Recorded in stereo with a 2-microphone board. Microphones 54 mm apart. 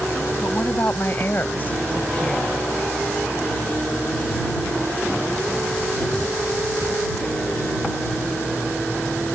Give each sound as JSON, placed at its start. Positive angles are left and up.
{"t": 0.4, "sound": "a woman speaking", "side_deg": 45}